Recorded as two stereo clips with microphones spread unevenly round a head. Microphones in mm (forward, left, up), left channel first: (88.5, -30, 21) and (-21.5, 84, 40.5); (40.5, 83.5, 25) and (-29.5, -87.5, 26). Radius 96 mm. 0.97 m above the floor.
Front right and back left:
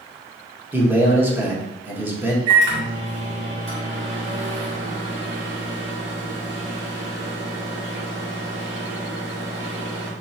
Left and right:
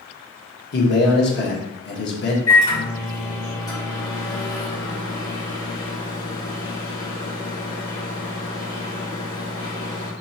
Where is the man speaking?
55° left, 1.4 m.